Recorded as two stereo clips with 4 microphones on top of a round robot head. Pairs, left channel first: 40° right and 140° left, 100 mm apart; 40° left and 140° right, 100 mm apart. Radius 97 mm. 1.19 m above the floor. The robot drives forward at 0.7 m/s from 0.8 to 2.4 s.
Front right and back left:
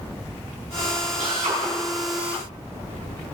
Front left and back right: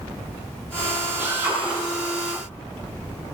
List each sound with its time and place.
1.2 s a drill: 150° left, 9 m; by 3.4 s 155° left, 10 m